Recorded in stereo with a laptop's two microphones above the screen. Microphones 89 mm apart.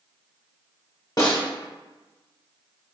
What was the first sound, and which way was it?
A snare drum, 45° left (ahead or behind).